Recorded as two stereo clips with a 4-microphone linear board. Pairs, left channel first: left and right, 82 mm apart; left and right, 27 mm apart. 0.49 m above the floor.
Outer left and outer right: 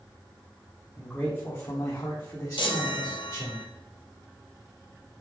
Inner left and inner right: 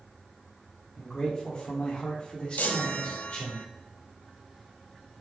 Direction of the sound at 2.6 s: 80° left.